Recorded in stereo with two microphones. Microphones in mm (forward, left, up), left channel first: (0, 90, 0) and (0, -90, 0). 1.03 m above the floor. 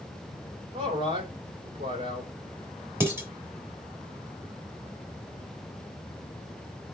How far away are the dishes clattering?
About 3 m.